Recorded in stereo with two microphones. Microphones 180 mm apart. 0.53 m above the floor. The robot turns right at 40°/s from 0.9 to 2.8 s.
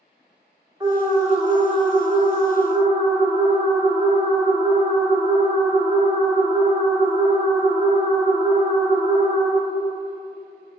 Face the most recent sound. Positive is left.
turn(degrees=-65)